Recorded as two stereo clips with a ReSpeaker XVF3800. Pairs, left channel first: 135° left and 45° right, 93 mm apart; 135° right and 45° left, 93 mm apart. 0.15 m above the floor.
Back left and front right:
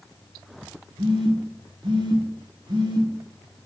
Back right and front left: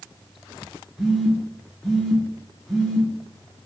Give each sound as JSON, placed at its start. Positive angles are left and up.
{"t": 1.0, "sound": "a phone buzzing", "azimuth_deg": -45, "distance_m": 1.1}